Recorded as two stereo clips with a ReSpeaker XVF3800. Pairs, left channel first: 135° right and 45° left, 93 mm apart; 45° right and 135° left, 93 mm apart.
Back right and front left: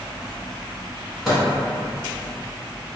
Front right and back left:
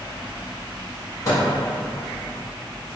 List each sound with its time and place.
1.2 s a microwave: 40° right, 1.2 m